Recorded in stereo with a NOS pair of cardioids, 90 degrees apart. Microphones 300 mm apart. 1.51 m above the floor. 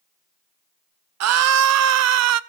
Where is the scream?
60° right, 0.9 m.